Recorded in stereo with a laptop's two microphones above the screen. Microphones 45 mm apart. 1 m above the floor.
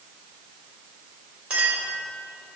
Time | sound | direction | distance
1.5 | a clink | 25° right (ahead or behind) | 2.5 m